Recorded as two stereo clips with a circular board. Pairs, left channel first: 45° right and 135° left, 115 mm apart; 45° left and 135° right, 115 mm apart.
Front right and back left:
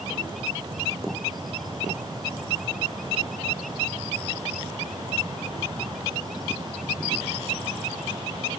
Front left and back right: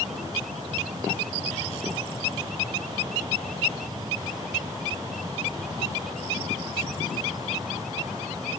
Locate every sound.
Only background noise.